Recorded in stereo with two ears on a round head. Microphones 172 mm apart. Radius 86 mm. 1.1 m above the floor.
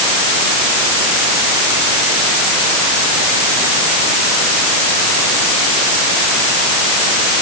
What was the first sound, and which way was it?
Only background noise.